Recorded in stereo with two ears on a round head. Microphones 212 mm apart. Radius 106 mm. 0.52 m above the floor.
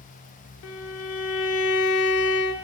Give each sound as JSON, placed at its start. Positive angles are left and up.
{"t": 0.6, "sound": "a violin", "side_deg": 60, "distance_m": 0.5}